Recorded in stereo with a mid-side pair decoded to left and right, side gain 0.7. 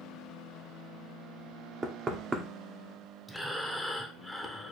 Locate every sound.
1.8 s knocking: 25° right, 0.7 m
3.3 s breathing: straight ahead, 0.6 m